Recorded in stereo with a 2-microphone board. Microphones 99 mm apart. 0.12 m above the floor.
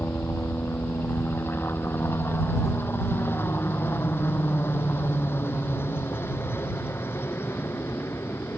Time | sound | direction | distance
0.0 | a helicopter | 20° left (ahead or behind) | ?